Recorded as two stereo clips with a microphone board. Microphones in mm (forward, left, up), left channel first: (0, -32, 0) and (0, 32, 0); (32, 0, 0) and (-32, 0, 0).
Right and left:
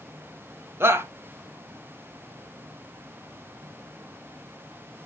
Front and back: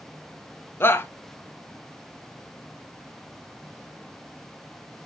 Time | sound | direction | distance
0.8 | a shout | 45° left | 1.1 m